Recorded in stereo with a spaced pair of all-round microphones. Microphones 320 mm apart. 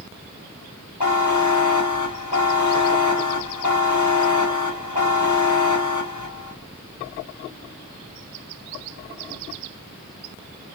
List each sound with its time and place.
1.0 s a buzzer: 65° left (ahead or behind), 1.0 m